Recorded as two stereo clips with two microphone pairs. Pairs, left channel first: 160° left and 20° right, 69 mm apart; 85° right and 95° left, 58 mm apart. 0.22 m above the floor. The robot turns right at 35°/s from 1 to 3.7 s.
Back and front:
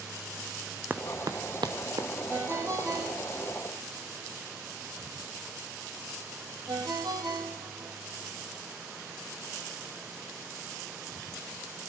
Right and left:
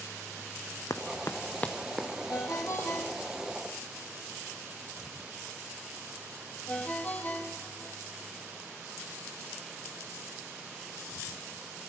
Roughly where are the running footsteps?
Right.